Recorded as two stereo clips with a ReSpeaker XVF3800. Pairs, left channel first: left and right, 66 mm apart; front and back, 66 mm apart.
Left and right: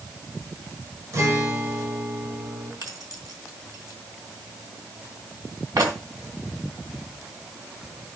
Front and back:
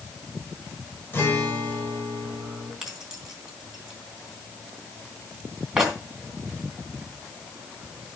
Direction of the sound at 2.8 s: 100° right.